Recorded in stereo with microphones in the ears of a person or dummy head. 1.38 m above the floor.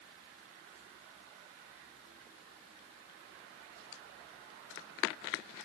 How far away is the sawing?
No sawing in this recording.